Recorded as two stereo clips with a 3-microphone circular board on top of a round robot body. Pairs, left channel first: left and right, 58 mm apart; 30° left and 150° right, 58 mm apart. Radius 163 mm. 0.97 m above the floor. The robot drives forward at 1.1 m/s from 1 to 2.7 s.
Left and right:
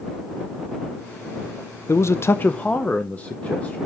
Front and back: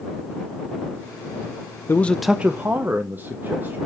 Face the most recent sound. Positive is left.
turn(degrees=155)